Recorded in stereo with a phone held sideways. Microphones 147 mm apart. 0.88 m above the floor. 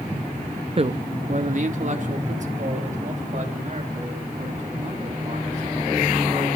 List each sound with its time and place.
0.8 s a man speaking: 40° right (ahead or behind), 0.6 m; by 6.5 s 50° right (ahead or behind), 8.5 m